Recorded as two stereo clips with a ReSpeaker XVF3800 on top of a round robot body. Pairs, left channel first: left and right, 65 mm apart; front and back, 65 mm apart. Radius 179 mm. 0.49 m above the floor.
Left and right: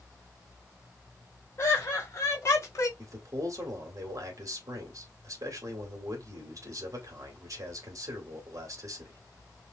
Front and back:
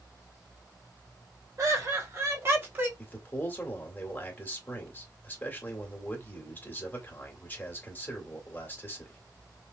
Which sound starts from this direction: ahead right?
A man speaking, at 3.0 s.